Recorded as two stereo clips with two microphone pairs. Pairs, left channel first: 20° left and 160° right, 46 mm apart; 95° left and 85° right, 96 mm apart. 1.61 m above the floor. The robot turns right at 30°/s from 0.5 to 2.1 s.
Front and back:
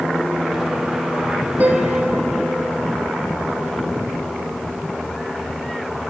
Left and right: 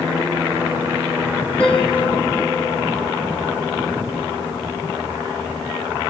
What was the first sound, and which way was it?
A piano, 165° left.